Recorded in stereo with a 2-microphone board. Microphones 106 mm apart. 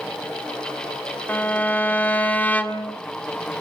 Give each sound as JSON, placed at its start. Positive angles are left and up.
{"t": 1.3, "sound": "a violin", "side_deg": 15, "distance_m": 1.8}